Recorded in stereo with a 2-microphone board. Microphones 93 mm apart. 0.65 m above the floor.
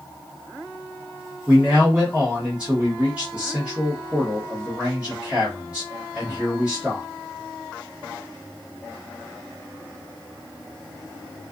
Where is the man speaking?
10° right (ahead or behind), 1.0 m.